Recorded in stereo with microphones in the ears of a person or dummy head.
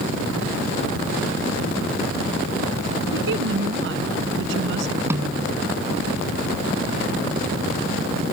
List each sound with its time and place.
3.1 s a woman speaking: 65° right (ahead or behind)
5.1 s a snare drum: 10° right (ahead or behind)